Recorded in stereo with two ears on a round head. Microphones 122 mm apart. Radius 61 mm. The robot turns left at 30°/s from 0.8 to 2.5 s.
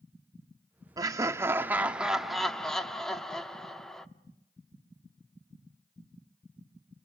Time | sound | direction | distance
1.0 | laughter | 140° right | 0.8 m